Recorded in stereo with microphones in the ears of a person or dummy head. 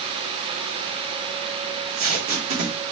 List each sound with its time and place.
1.7 s tape being pulled: 35° right (ahead or behind), 1.5 m